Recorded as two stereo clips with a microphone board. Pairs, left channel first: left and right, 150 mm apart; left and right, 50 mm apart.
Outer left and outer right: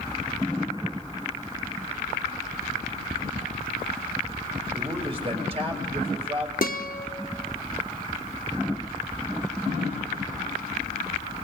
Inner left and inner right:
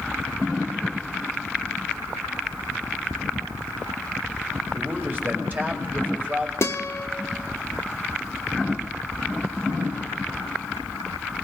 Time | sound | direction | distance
4.7 | a man speaking | 35° right (ahead or behind) | 2 m
6.6 | a guitar | 60° left (ahead or behind) | 0.7 m